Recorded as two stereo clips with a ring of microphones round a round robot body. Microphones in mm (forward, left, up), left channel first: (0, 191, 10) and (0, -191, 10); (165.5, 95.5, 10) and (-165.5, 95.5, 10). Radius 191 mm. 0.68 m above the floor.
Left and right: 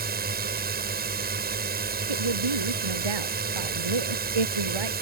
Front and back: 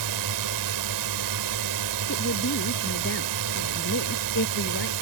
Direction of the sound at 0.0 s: 155° right.